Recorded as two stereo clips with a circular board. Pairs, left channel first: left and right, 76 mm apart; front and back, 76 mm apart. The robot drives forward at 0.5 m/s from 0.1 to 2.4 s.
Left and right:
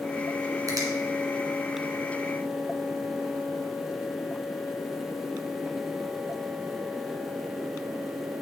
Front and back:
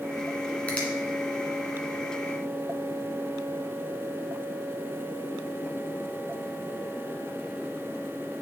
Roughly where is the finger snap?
Right.